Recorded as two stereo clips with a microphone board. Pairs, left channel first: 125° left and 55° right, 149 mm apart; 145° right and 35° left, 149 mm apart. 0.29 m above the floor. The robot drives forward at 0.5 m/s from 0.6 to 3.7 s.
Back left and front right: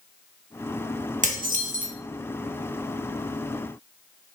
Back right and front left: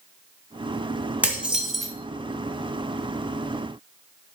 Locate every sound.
1.2 s dishes clattering: 45° right, 1.4 m; by 1.9 s 60° right, 1.2 m